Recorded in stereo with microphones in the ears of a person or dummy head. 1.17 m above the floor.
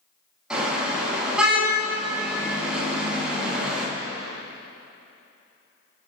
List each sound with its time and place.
0.5 s a car horn: centre (ahead or behind), 6 m